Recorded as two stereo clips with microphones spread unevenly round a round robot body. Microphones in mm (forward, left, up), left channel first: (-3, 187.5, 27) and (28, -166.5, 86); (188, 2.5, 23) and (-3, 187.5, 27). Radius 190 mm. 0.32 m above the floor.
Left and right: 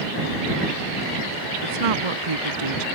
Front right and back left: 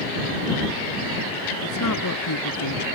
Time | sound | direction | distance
1.6 | a woman speaking | 85° right | ?